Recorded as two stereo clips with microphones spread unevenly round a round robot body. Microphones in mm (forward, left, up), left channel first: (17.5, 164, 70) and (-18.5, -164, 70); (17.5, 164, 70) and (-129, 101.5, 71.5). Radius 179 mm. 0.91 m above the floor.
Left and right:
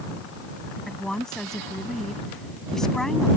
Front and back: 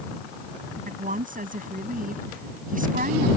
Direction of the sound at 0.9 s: 175° left.